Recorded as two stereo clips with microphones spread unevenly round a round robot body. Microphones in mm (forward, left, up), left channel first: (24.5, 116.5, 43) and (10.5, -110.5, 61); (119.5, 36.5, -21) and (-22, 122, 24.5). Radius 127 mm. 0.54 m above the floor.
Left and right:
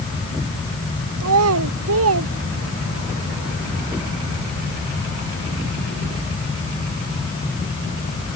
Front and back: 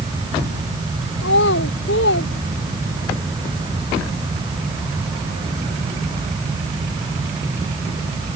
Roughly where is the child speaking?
Right.